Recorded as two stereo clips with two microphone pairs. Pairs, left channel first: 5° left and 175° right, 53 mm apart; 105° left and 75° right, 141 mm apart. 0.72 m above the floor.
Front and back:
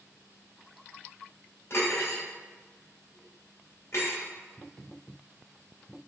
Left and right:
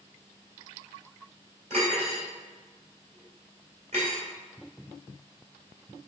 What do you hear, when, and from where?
1.7 s cutlery clinking: 35° right, 1.9 m